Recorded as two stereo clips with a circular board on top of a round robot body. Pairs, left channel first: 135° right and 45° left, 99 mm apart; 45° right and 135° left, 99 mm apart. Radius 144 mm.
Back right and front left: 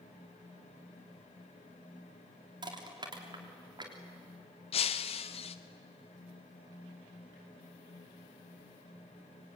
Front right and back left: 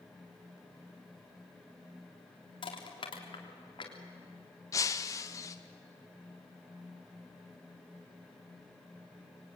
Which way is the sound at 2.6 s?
Straight ahead.